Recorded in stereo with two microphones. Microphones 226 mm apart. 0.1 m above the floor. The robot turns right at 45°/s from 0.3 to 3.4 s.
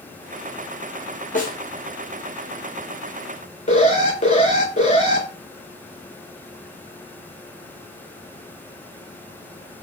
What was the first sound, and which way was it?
A snare drum, 35° left (ahead or behind).